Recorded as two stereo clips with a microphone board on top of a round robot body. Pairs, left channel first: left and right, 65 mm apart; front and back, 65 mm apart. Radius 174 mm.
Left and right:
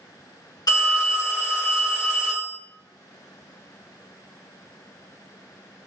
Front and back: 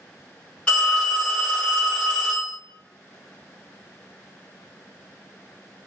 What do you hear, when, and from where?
0.7 s a phone ringing: 75° left, 0.9 m